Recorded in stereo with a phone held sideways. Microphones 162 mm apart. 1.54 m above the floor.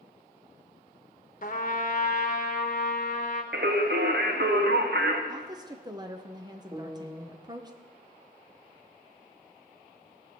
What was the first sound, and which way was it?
A trumpet, 55° left (ahead or behind).